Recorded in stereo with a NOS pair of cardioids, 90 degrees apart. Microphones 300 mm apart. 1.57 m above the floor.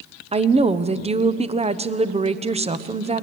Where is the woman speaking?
20° right, 1.0 m.